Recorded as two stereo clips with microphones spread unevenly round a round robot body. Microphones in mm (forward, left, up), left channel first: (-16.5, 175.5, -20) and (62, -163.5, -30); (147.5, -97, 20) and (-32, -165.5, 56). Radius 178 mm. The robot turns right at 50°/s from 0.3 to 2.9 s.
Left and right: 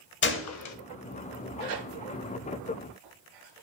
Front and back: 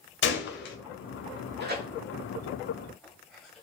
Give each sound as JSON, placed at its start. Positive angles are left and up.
{"t": 0.2, "sound": "a gunshot", "azimuth_deg": 45, "distance_m": 0.8}
{"t": 1.6, "sound": "tearing paper", "azimuth_deg": -125, "distance_m": 2.5}